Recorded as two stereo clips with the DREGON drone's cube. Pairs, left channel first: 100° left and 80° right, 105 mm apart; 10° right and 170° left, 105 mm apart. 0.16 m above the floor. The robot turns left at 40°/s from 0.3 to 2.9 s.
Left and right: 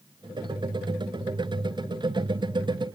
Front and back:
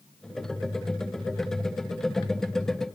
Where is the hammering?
I don't hear hammering.